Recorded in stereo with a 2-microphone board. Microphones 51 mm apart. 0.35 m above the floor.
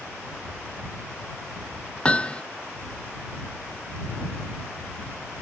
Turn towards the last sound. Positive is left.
turn(degrees=20)  # may be behind; listen again after turning